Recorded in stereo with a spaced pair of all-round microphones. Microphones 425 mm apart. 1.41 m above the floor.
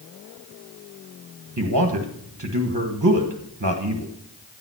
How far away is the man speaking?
About 1.3 m.